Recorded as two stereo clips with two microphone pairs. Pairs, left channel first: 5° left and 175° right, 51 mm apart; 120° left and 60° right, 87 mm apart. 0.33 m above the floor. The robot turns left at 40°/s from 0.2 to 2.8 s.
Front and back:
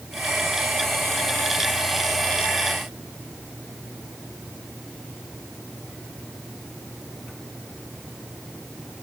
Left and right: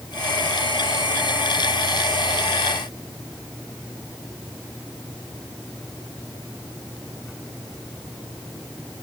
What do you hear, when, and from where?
Only background noise.